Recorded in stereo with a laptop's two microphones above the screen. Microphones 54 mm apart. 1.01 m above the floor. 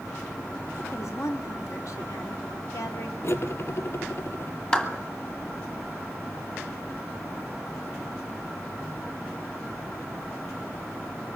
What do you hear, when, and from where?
0.8 s a woman speaking: 70° left (ahead or behind), 2.5 m
3.2 s cutlery clinking: 50° left (ahead or behind), 1.1 m
4.7 s a clap: 20° left (ahead or behind), 1.7 m